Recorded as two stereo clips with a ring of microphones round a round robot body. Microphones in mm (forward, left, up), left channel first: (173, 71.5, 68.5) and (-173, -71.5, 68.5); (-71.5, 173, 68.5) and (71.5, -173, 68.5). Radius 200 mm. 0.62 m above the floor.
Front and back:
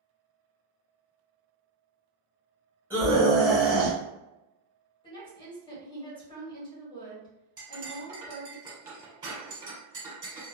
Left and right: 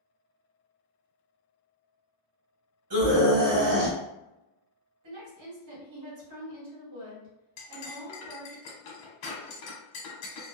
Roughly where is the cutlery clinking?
Behind left.